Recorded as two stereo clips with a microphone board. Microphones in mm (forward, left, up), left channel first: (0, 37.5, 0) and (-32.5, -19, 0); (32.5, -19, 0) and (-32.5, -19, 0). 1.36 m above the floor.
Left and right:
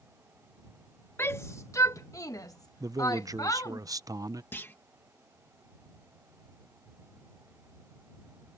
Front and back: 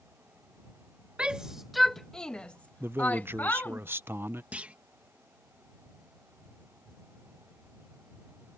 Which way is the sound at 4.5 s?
115° left.